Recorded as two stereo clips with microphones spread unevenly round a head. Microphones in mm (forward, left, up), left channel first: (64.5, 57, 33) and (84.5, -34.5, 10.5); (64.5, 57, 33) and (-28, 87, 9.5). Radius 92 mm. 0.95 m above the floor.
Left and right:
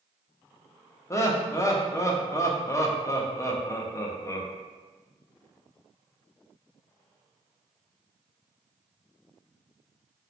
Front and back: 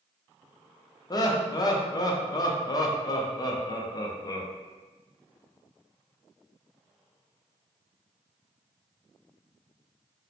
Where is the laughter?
35° left, 0.6 m.